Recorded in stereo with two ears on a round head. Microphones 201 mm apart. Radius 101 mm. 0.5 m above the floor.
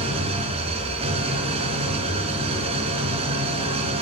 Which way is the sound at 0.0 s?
25° right (ahead or behind).